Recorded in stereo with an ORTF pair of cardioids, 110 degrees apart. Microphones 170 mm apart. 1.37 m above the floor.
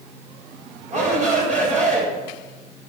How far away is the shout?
About 7 m.